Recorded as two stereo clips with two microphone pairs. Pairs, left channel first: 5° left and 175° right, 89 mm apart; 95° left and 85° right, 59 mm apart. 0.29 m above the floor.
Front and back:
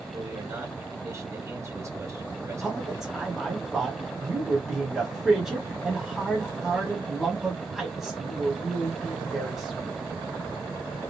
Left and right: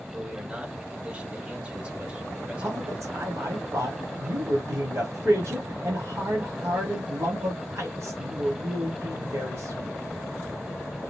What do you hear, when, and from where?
0.1 s a man speaking: 145° right, 1.1 m
2.6 s a man speaking: 90° right, 1.7 m